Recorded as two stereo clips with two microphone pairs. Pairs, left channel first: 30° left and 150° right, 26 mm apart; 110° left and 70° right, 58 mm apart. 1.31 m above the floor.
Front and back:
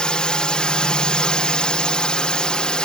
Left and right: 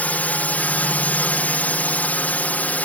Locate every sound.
0.0 s a drone: 65° left